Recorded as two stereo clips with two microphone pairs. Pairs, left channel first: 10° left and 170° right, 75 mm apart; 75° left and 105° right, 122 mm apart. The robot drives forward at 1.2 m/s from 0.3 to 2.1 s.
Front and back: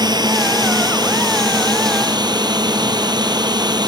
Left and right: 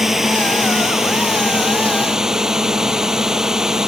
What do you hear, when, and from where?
0.0 s a drone: 170° left